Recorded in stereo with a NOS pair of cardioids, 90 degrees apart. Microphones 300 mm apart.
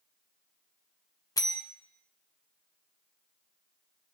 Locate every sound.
1.4 s a bell: 10° left, 0.9 m